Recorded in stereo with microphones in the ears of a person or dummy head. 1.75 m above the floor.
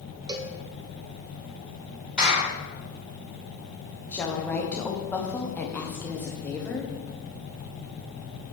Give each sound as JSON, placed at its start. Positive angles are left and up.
{"t": 0.3, "sound": "a cowbell", "side_deg": -25, "distance_m": 0.9}
{"t": 2.2, "sound": "a clap", "side_deg": -5, "distance_m": 4.0}
{"t": 4.1, "sound": "a woman speaking", "side_deg": 10, "distance_m": 1.4}